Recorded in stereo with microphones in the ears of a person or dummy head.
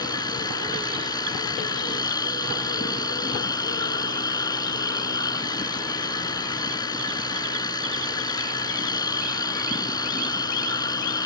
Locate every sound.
0.0 s a machine running: 25° left (ahead or behind)